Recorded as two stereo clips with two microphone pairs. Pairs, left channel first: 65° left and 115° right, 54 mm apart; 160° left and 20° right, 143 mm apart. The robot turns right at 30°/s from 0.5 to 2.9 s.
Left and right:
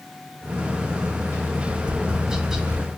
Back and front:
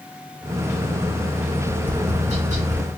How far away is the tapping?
About 1.7 m.